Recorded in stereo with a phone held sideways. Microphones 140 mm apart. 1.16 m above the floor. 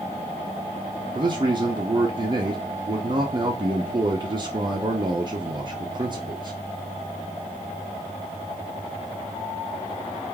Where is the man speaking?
35° right (ahead or behind), 0.6 m.